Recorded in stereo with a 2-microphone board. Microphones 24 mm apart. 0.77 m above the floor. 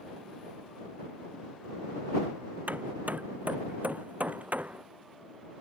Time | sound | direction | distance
2.7 | hammering | 80° right | ?